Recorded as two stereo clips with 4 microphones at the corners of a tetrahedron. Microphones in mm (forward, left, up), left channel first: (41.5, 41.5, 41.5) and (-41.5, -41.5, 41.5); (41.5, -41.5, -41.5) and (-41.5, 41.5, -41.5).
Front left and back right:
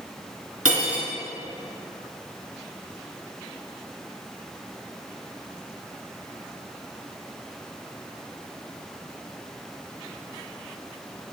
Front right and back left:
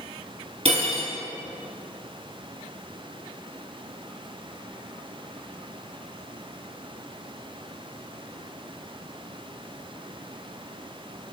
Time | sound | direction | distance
0.7 | cutlery clinking | 145° left | 1.7 m